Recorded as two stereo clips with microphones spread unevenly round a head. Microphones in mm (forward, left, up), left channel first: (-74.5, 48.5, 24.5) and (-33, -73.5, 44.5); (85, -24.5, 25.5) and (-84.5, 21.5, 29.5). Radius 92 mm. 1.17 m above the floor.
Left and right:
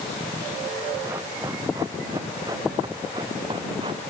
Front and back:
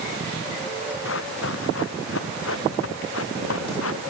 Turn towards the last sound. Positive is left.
turn(degrees=-5)